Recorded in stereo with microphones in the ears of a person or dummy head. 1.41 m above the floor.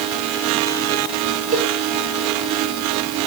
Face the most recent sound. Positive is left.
turn(degrees=-40)  # may be behind; listen again after turning